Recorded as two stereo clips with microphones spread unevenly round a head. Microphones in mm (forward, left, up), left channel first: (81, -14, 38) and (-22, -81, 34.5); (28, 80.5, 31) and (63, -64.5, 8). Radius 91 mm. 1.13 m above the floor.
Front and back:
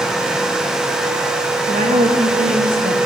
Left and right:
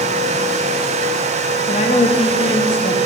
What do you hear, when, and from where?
1.7 s a woman speaking: 165° left, 1.4 m